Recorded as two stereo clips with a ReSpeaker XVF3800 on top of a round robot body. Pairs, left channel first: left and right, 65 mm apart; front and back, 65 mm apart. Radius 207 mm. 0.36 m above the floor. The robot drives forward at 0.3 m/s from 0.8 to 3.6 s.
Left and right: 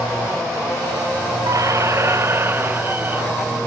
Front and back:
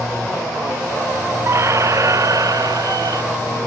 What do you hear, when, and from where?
1.5 s a squeak: 130° right; by 3.2 s 155° right